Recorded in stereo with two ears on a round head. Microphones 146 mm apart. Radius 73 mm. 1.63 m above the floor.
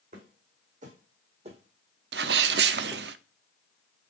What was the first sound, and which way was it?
Footsteps, 55° right (ahead or behind).